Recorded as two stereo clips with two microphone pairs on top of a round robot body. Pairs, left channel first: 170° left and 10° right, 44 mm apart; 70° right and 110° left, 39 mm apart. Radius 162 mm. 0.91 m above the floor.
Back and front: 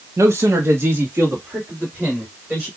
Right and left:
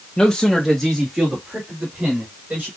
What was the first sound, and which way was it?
A man speaking, 10° right.